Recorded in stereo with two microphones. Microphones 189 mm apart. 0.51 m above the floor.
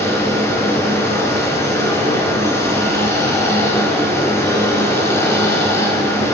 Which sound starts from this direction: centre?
Running water, at 0.0 s.